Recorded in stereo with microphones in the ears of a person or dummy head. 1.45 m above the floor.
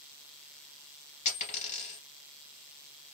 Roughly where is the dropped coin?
Left.